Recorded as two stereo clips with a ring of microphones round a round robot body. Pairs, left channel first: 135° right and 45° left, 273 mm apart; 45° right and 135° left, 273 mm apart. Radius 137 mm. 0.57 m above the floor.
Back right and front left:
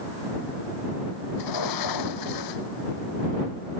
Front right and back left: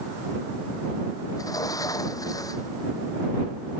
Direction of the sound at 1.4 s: 125° right.